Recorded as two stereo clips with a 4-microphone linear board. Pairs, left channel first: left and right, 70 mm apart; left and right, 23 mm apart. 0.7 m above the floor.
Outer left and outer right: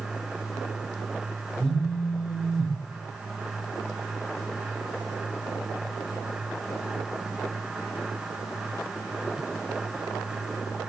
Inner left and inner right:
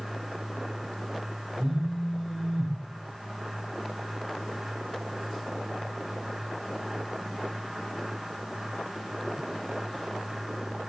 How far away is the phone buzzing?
About 0.8 m.